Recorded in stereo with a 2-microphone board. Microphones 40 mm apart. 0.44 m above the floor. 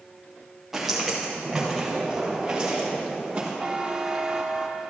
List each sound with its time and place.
0.7 s footsteps: 5° right (ahead or behind), 3 m; by 3.5 s 25° right (ahead or behind), 4.5 m
3.6 s a buzzer: 25° right (ahead or behind), 0.8 m